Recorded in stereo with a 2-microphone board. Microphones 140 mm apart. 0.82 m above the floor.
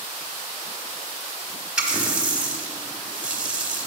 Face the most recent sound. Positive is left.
turn(degrees=-5)  # may be behind; listen again after turning